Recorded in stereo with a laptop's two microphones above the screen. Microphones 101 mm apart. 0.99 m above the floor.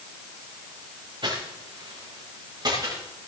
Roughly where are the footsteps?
Right.